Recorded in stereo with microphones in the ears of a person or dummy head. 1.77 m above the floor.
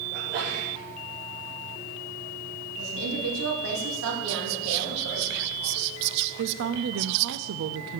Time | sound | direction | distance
0.1 | a sneeze | 60° right (ahead or behind) | 4 m
2.8 | a woman speaking | 80° right | 3 m
4.3 | whispering | 65° right (ahead or behind) | 0.5 m
6.4 | a woman speaking | 75° right (ahead or behind) | 0.5 m